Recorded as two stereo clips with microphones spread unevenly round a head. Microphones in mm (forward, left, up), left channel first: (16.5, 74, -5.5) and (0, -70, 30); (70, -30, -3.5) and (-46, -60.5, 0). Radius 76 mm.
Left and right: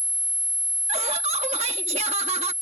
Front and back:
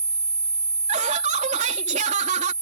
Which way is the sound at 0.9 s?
145° right.